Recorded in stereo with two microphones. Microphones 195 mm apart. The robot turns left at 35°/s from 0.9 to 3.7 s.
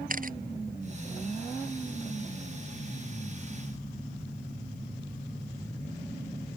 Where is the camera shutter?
45° right (ahead or behind).